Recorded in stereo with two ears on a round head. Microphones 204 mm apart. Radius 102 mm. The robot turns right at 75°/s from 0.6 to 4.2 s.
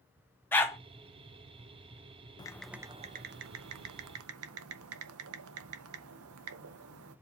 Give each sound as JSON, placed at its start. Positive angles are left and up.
{"t": 0.5, "sound": "a dog barking", "side_deg": 10, "distance_m": 0.7}
{"t": 2.4, "sound": "typing on a keyboard", "azimuth_deg": 160, "distance_m": 0.5}